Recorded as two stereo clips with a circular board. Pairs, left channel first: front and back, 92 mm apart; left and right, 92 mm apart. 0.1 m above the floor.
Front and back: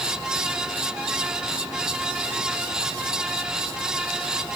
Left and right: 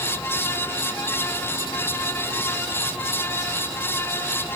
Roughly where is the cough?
No cough in this recording.